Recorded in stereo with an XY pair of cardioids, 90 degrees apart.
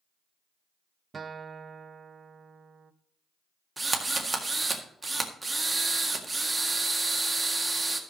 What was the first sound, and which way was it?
A guitar, 40° right.